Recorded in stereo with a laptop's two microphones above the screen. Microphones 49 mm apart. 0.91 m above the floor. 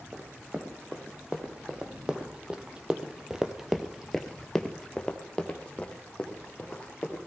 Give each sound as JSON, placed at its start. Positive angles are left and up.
{"t": 0.1, "sound": "running footsteps", "side_deg": -20, "distance_m": 3.0}